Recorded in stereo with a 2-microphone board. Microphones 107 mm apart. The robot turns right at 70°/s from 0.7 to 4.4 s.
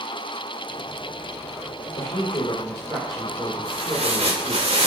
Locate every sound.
2.0 s a woman speaking: 95° left, 4 m; by 4.7 s 95° right, 4 m
3.6 s tearing paper: 140° right, 2.5 m; by 4.9 s 85° right, 2.5 m